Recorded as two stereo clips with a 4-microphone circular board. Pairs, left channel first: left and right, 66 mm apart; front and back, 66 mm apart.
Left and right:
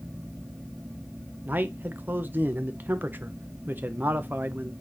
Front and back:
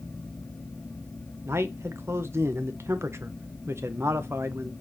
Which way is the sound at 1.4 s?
140° right.